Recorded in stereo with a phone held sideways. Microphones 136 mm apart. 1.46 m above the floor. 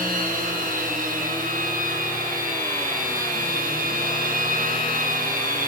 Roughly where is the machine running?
Right.